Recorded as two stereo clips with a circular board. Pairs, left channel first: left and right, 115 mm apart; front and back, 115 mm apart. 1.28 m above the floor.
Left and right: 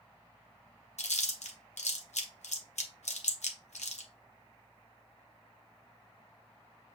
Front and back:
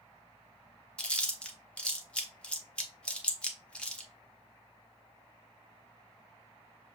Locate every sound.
1.0 s chewing: 80° left, 0.9 m